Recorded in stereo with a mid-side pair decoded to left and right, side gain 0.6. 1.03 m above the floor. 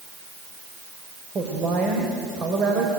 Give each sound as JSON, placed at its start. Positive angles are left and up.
{"t": 1.4, "sound": "a woman speaking", "azimuth_deg": -40, "distance_m": 4.5}